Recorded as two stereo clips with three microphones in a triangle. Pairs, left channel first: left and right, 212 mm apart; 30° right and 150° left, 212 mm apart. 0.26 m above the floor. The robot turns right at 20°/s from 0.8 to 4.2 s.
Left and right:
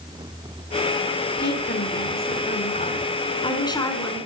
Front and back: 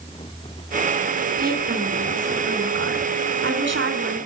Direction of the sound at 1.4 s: 110° left.